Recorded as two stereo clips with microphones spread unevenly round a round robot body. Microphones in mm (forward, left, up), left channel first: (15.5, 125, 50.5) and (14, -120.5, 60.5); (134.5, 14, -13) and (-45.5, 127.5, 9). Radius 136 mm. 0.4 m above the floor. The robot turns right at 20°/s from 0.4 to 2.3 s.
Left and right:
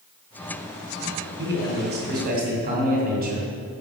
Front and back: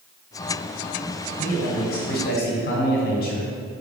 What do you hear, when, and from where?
1.4 s a man speaking: 70° right, 2.5 m; by 3.5 s 50° right, 2.5 m